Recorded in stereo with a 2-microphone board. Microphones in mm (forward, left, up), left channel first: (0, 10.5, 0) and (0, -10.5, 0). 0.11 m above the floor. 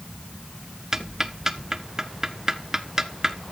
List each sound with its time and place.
0.9 s ticking: 25° right (ahead or behind), 0.8 m